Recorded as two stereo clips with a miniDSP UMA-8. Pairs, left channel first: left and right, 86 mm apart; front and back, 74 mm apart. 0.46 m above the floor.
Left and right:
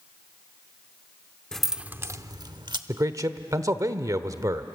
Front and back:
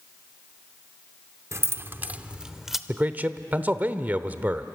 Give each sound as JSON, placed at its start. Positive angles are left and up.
{"t": 1.5, "sound": "keys jangling", "azimuth_deg": 170, "distance_m": 0.6}
{"t": 2.9, "sound": "a man speaking", "azimuth_deg": -120, "distance_m": 1.1}